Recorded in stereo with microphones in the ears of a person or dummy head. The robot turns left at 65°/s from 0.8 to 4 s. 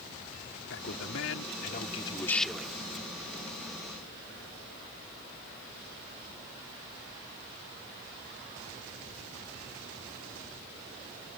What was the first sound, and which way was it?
A man speaking, 105° left.